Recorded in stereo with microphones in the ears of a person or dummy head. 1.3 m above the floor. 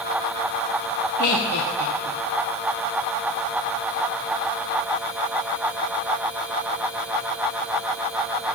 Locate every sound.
1.2 s laughter: 60° left (ahead or behind), 1.0 m